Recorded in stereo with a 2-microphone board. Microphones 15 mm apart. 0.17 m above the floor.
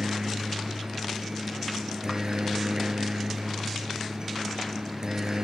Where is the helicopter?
35° right (ahead or behind).